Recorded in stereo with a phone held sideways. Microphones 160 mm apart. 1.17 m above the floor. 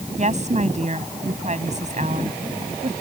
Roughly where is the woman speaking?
Right.